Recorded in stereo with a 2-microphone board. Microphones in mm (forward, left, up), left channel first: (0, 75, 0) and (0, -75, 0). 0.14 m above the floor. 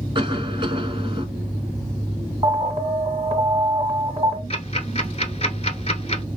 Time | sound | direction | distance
0.1 | a cough | 35° right (ahead or behind) | 1.7 m
2.4 | an alarm | 30° right (ahead or behind) | 2.5 m
4.5 | ticking | 45° left (ahead or behind) | 0.9 m